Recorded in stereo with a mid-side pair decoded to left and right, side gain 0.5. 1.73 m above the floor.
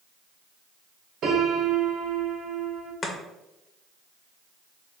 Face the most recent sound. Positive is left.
turn(degrees=30)